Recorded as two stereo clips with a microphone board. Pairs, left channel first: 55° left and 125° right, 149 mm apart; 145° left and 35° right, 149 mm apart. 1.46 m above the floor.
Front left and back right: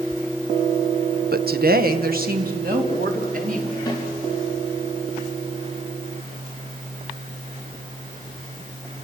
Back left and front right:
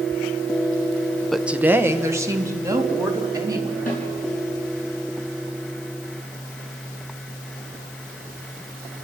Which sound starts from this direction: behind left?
A snare drum, at 3.9 s.